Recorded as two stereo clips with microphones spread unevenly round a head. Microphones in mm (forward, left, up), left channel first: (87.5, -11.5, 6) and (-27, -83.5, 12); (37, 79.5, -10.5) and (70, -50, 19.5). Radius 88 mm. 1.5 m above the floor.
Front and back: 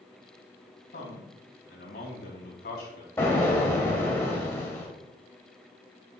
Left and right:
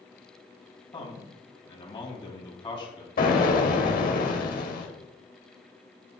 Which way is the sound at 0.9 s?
50° left.